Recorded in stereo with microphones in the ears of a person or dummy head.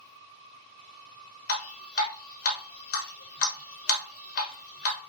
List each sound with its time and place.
1.5 s dripping: 50° left (ahead or behind), 1.1 m